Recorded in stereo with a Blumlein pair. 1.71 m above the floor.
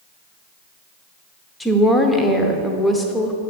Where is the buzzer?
No buzzer in this recording.